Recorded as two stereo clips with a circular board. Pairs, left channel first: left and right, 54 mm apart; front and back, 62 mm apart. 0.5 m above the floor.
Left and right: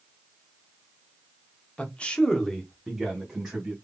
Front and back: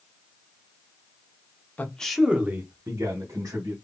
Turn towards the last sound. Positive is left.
turn(degrees=-175)